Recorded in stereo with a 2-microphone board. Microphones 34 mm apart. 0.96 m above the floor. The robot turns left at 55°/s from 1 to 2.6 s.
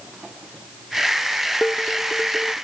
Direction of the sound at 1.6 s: 35° left.